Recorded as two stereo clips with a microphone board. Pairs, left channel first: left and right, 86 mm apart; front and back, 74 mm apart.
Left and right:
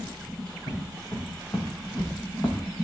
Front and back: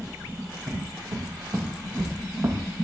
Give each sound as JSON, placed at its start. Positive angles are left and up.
{"t": 0.7, "sound": "footsteps", "azimuth_deg": 140, "distance_m": 4.5}